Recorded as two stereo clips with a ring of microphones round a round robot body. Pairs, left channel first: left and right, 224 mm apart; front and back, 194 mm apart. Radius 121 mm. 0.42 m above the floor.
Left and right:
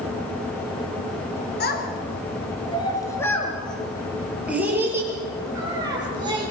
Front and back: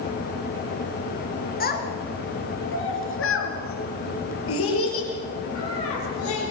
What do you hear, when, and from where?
1.6 s a child speaking: 40° left, 3.5 m; by 6.5 s 20° right, 7.5 m